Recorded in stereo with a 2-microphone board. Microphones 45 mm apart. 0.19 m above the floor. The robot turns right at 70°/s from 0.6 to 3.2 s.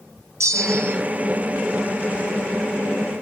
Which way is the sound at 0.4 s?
80° right.